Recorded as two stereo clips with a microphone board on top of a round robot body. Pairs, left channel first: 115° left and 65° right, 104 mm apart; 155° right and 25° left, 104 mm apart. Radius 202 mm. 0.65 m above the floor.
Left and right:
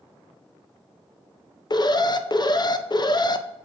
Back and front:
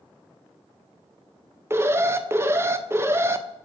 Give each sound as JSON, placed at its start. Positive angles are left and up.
{"t": 1.7, "sound": "an alarm", "azimuth_deg": 80, "distance_m": 0.5}